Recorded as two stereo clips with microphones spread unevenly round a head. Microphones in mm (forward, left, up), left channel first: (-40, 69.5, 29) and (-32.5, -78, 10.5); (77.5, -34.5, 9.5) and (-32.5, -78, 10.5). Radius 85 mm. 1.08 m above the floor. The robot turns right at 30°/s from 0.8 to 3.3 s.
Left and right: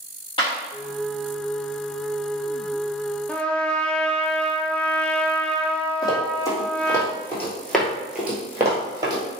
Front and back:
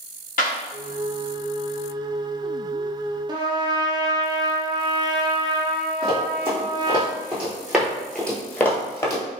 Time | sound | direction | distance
0.4 | a clap | 30° left | 1.0 m
3.3 | a trumpet | straight behind | 0.5 m
6.0 | running footsteps | 145° left | 1.7 m